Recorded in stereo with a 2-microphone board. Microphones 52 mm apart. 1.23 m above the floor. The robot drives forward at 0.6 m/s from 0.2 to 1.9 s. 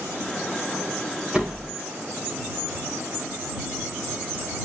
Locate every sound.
1.3 s a door slam: 10° right (ahead or behind), 4 m